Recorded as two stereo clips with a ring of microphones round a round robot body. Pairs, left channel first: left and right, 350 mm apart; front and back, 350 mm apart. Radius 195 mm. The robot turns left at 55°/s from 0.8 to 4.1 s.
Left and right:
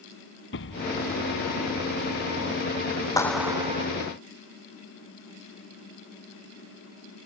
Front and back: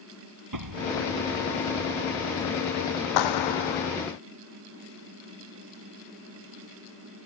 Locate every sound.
0.5 s an explosion: 150° left; by 2.4 s 65° left
3.2 s a clap: 10° left; by 3.9 s 30° right